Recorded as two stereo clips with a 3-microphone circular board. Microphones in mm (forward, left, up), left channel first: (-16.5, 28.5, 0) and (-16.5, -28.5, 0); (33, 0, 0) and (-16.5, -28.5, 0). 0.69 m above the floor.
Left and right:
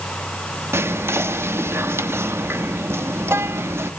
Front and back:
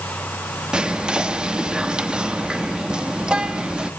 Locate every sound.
0.7 s whispering: 85° right, 0.9 m